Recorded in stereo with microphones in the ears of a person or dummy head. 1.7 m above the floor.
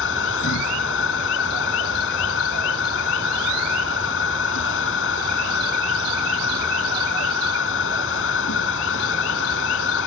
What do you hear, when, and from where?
0.0 s a machine running: 70° left (ahead or behind)